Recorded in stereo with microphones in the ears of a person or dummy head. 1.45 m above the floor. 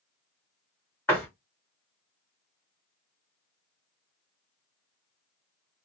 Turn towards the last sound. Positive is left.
turn(degrees=10)  # may be behind; listen again after turning